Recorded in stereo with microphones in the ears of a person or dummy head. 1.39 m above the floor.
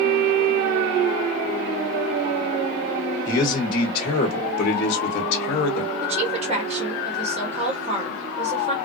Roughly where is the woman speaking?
Right.